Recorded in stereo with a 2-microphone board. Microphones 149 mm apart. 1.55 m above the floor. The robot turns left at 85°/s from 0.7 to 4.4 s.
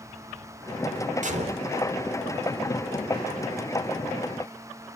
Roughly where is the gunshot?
Right.